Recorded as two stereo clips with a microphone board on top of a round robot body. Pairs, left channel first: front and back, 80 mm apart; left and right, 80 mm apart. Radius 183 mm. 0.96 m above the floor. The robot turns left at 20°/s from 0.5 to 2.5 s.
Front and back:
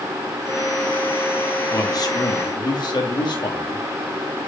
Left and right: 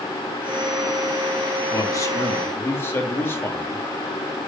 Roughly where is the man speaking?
Ahead left.